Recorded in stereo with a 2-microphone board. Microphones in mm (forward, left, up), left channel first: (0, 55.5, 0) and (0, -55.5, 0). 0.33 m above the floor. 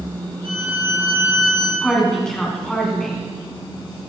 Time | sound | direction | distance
0.4 | a violin | 60° right (ahead or behind) | 1.9 m
1.8 | a woman speaking | 5° left (ahead or behind) | 2.5 m